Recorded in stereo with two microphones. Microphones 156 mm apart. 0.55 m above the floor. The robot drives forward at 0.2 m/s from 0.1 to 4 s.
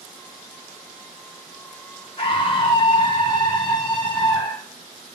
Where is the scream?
35° left (ahead or behind), 0.8 m; by 4.7 s 30° left (ahead or behind), 0.9 m.